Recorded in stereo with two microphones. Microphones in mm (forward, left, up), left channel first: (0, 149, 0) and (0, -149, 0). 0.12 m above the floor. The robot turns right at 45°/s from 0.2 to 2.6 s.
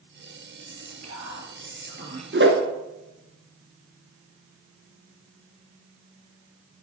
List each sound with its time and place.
0.7 s whispering: 95° right, 3 m; by 2.2 s 25° right, 3 m
2.3 s a whoosh: 40° right (ahead or behind), 1.3 m; by 2.6 s 35° right (ahead or behind), 1.3 m